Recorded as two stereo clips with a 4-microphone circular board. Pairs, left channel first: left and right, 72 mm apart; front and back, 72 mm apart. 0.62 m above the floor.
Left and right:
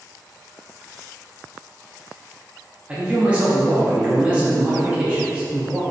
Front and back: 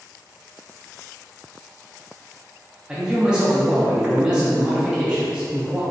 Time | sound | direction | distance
2.9 | a man speaking | 125° right | 0.6 m